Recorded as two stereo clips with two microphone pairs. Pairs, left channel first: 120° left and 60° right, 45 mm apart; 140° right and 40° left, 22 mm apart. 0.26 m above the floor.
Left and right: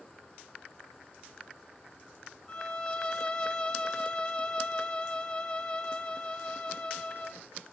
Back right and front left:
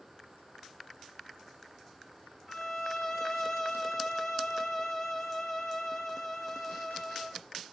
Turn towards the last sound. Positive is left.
turn(degrees=170)